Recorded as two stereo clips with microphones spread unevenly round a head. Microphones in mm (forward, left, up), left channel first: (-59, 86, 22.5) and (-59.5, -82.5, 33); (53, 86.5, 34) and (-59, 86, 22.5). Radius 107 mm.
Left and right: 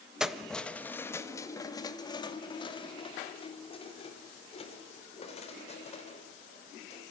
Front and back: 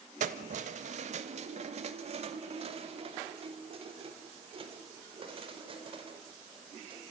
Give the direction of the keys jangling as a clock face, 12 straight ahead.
6 o'clock.